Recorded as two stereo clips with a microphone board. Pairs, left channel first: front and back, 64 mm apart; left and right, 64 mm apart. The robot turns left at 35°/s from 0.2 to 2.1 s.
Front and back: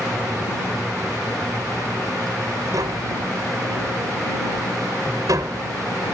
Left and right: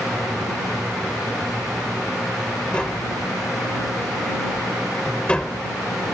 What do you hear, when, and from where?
2.7 s tapping: 165° left